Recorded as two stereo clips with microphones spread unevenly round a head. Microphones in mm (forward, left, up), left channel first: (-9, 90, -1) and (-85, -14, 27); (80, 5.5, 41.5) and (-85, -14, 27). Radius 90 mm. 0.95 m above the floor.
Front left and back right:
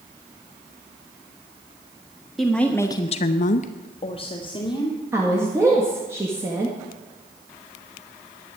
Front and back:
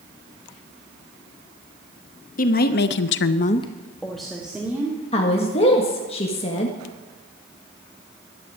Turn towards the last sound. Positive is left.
turn(degrees=-45)